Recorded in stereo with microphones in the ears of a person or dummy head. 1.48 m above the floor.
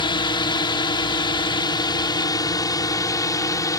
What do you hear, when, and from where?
0.0 s a drone: 25° left (ahead or behind); by 3.8 s 20° left (ahead or behind)